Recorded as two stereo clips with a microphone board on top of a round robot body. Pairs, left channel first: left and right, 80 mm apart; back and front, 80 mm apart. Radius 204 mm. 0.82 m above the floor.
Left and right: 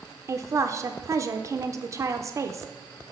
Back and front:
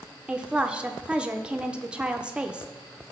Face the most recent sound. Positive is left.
turn(degrees=-75)